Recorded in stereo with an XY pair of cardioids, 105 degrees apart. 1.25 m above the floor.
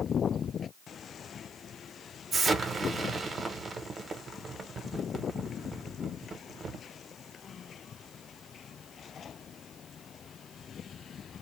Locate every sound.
2.3 s an explosion: 35° right, 0.9 m